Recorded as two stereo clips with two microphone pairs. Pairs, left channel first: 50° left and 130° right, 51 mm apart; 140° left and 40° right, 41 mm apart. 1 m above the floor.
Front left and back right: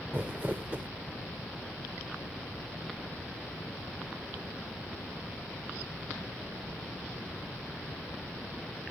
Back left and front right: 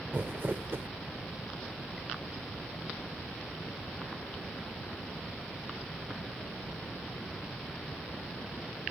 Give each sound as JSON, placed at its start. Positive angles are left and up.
{"t": 0.1, "sound": "crumpling", "azimuth_deg": -70}